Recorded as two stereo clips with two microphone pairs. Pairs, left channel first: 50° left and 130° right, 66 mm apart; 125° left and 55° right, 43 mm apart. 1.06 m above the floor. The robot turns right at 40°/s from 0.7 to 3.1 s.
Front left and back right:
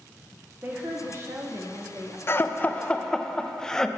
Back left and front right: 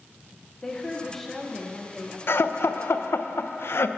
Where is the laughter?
105° left, 0.5 m; by 3.9 s 140° left, 0.5 m.